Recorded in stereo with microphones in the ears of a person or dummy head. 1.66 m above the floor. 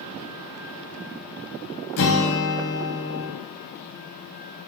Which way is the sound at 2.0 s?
60° left (ahead or behind).